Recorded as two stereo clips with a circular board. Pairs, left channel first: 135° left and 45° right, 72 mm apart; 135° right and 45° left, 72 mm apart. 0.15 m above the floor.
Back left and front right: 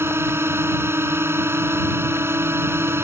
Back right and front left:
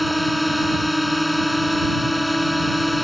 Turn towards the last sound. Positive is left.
turn(degrees=-45)